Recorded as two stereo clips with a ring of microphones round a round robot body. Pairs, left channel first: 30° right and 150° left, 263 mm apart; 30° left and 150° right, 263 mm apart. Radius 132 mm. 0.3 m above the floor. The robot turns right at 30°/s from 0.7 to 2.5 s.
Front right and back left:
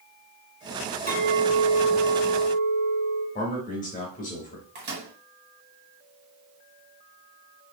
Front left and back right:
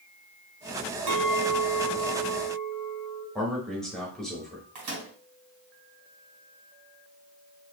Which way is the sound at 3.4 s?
55° right.